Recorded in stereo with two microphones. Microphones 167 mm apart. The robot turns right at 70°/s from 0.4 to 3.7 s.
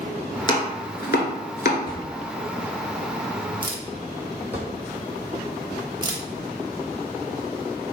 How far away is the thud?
About 1.4 m.